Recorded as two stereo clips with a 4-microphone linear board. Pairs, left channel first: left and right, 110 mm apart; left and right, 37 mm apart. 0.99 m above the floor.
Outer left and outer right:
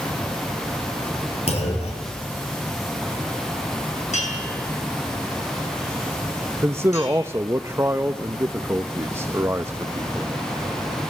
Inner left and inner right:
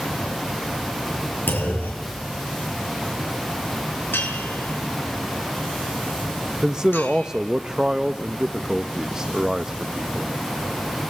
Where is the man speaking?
20° right (ahead or behind), 0.7 m.